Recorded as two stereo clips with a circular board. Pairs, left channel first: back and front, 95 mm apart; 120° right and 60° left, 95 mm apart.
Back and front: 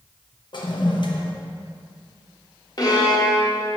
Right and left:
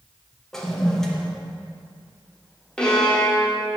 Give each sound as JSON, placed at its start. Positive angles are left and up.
{"t": 0.5, "sound": "a toilet flushing", "azimuth_deg": 155, "distance_m": 0.8}
{"t": 2.8, "sound": "a violin", "azimuth_deg": 160, "distance_m": 1.2}